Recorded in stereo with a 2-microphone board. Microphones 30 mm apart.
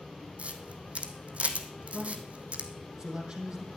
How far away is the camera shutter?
About 1.4 m.